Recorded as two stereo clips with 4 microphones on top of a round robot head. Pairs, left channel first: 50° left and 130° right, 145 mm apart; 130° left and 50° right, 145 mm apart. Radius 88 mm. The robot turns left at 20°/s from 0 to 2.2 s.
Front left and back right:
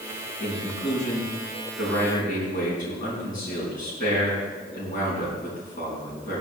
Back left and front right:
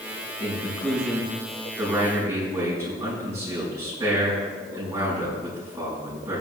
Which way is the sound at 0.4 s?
55° left.